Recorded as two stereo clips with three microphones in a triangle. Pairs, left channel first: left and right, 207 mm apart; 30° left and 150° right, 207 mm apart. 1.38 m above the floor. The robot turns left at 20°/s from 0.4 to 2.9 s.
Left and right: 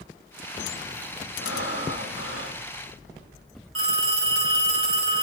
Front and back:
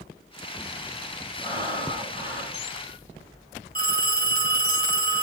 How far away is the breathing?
About 7.5 m.